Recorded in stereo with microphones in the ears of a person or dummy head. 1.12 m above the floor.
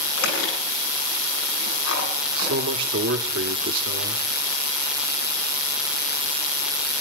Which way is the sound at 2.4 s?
75° right (ahead or behind).